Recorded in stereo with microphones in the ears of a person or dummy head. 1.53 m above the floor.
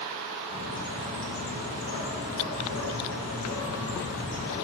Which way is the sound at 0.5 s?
80° left.